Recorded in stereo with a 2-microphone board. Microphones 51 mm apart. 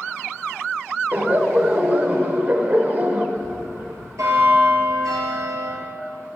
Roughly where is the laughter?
Right.